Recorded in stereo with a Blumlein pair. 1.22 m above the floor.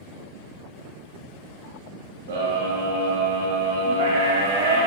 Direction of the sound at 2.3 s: 60° right.